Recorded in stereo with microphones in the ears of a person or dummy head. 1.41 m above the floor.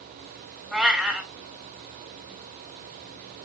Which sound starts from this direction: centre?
A cat meowing, at 0.7 s.